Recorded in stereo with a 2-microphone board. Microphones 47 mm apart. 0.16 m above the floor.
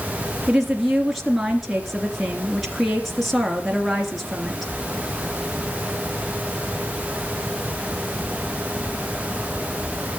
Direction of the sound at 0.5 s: Centre (ahead or behind).